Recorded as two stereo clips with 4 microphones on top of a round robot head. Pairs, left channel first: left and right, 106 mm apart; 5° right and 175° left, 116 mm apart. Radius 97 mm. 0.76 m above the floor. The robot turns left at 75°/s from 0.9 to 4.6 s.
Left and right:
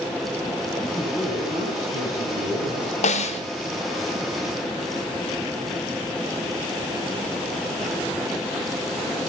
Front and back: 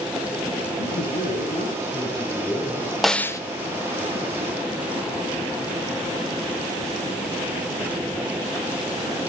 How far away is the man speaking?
About 9.5 m.